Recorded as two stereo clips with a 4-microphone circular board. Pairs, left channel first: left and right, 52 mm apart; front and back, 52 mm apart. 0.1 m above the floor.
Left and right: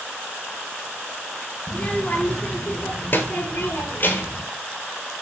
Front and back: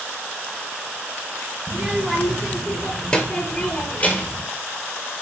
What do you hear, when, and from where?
1.7 s a child speaking: 120° left, 1.1 m; by 4.4 s 45° left, 2 m